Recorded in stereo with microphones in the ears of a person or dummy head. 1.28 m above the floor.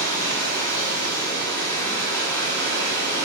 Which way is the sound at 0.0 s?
15° left (ahead or behind).